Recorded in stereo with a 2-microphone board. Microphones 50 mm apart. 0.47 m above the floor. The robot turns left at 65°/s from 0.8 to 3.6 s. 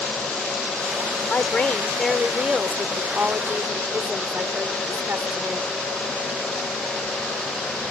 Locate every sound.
1.3 s a woman speaking: 65° left; by 5.7 s 90° right